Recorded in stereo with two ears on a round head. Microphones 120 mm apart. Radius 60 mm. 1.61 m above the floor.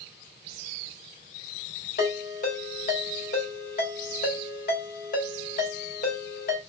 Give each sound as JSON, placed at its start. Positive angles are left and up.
{"t": 2.0, "sound": "a ringtone", "side_deg": 70, "distance_m": 2.5}